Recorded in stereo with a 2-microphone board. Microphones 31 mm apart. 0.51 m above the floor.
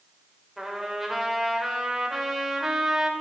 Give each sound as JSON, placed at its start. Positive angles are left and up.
{"t": 0.6, "sound": "a trumpet", "side_deg": -5, "distance_m": 2.5}